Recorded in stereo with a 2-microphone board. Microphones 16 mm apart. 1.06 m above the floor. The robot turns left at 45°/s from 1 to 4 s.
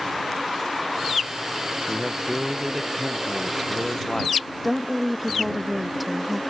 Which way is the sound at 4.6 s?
5° right (ahead or behind).